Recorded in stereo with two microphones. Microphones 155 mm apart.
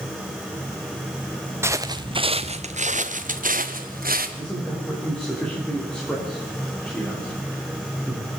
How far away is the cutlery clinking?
No cutlery clinking in this recording.